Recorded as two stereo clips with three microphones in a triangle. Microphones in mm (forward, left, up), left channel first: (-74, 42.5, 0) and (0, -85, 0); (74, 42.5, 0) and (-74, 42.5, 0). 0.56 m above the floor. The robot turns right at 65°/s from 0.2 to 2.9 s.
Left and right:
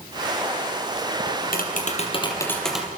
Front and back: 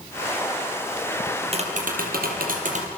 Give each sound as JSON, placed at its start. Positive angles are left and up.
{"t": 1.3, "sound": "tapping", "azimuth_deg": 115, "distance_m": 4.5}